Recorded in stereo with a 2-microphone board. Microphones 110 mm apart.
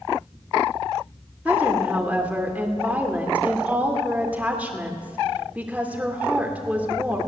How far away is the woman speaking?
About 2 m.